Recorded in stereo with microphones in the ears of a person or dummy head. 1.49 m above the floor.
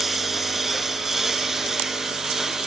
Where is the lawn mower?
Centre (ahead or behind).